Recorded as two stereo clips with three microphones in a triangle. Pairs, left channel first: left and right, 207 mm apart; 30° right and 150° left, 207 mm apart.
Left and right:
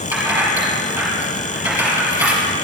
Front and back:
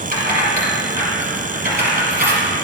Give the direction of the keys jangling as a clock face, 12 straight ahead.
6 o'clock.